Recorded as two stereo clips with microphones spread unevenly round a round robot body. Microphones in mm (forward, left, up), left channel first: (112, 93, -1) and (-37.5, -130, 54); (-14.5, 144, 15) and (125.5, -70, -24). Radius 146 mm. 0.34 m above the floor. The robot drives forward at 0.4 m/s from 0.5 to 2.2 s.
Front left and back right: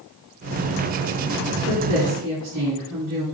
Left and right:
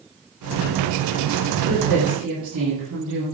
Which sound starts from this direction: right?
A woman speaking, at 1.7 s.